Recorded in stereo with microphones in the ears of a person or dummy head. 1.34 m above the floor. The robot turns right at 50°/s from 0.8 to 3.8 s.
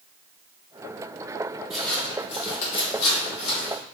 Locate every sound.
1.7 s footsteps: centre (ahead or behind), 1.8 m; by 3.8 s 45° left (ahead or behind), 3.5 m